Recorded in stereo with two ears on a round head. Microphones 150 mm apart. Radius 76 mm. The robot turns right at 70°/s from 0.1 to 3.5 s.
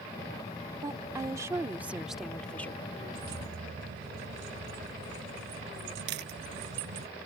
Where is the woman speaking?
20° right (ahead or behind); by 2.9 s 15° left (ahead or behind).